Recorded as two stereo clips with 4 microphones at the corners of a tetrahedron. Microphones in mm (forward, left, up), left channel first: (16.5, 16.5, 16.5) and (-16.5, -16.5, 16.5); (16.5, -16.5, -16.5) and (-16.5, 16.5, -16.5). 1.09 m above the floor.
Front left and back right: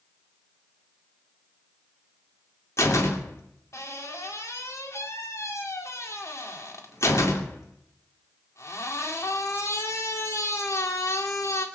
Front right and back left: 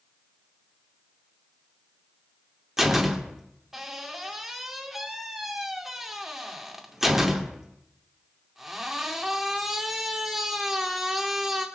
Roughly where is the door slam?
Ahead left.